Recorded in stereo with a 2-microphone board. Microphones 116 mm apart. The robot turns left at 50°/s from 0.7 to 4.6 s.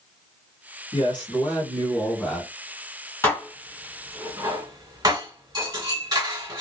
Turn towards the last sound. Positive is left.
turn(degrees=-35)  # may be behind; listen again after turning